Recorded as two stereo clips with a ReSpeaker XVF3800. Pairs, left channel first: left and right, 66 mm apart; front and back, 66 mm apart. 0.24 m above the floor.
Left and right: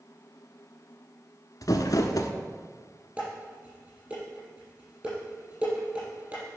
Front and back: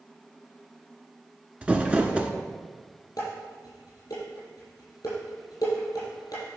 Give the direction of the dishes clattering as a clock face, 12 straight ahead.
1 o'clock.